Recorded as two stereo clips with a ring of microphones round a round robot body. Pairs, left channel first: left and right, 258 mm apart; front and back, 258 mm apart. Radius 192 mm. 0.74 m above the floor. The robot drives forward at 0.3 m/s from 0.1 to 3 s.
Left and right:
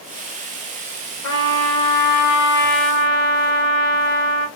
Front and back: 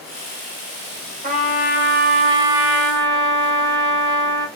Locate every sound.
1.2 s a trumpet: 120° left, 1.1 m; by 4.5 s 140° left, 1.4 m